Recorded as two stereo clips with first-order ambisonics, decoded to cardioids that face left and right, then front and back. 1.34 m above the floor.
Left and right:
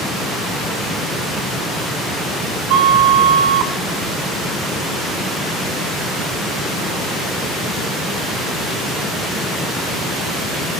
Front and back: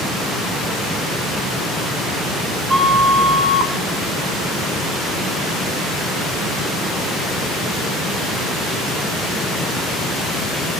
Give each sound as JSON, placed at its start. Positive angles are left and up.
{"t": 2.7, "sound": "a flute", "azimuth_deg": -105, "distance_m": 0.7}